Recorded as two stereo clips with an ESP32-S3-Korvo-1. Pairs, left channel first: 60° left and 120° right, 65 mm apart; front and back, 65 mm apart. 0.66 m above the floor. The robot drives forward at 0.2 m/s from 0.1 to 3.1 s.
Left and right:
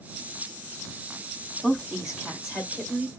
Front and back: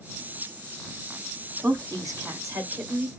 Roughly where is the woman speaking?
Behind.